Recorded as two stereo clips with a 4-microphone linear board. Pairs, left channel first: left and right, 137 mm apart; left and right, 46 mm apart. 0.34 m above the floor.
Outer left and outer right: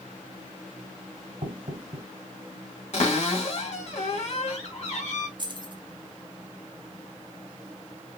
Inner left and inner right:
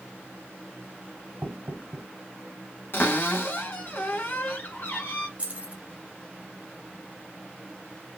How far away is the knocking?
About 1.9 m.